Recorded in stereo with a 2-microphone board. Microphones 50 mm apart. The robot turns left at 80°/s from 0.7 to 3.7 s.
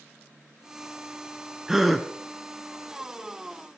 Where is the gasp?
10° right (ahead or behind), 1.0 m; by 2.1 s 5° left (ahead or behind), 1.0 m.